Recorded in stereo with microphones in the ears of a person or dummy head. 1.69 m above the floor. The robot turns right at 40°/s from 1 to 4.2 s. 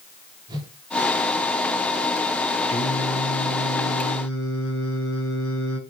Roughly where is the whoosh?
Right.